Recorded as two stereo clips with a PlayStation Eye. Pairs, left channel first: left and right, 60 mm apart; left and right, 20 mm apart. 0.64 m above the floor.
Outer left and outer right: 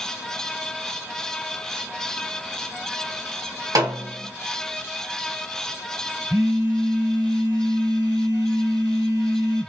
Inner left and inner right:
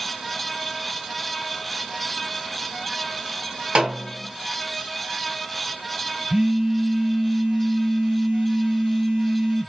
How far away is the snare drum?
About 2.5 m.